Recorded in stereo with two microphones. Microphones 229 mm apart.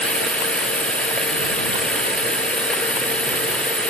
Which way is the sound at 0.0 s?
5° left (ahead or behind).